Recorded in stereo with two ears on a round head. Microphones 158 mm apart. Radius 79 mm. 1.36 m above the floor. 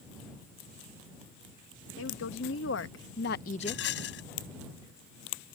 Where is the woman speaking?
80° left; by 3.8 s 15° left (ahead or behind).